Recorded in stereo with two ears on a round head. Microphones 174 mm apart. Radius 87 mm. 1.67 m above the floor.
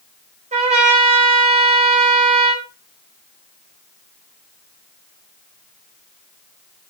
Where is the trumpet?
35° right (ahead or behind), 4.5 m.